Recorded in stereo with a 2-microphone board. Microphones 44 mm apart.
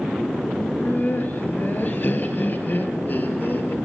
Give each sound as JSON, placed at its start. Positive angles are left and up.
{"t": 0.6, "sound": "laughter", "side_deg": 50, "distance_m": 3.0}